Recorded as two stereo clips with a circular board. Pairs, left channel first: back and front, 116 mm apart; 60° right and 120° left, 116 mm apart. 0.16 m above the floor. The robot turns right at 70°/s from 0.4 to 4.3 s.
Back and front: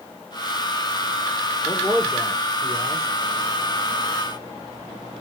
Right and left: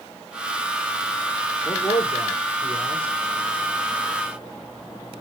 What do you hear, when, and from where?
1.6 s a man speaking: 120° right, 4 m; by 3.1 s 15° right, 4 m